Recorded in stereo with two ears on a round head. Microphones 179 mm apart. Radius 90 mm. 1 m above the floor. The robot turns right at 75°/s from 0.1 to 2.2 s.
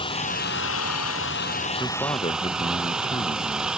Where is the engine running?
25° left; by 3.8 s 175° right.